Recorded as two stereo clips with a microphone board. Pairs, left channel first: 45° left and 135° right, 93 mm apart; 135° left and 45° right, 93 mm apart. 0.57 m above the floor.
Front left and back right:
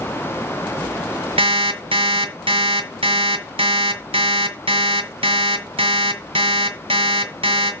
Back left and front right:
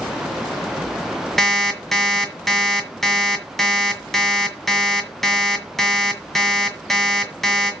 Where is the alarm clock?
140° right, 1.9 m.